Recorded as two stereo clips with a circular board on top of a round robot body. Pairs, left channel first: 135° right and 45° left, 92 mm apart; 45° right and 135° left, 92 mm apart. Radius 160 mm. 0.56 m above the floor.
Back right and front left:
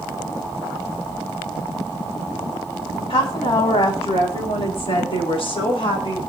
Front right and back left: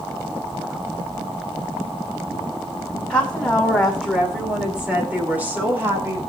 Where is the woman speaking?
120° right, 5.5 m; by 6.2 s 160° right, 6 m.